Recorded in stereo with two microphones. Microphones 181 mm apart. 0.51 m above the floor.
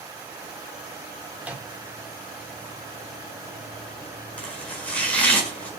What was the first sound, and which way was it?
A microwave, 10° right (ahead or behind).